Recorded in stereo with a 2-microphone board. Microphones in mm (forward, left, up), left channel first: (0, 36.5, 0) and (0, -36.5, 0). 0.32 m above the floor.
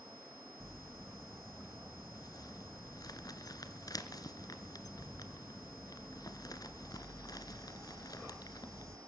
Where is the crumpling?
65° left (ahead or behind), 1.2 m.